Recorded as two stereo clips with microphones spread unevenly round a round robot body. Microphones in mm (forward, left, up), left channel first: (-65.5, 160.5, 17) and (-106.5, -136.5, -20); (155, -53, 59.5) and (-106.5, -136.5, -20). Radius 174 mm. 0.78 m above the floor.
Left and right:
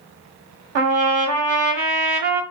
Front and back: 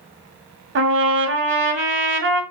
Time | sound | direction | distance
0.8 | a trumpet | 120° right | 1.3 m